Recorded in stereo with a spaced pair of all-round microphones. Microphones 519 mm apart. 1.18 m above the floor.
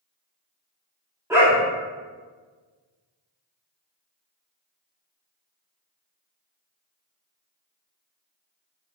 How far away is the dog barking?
About 0.8 m.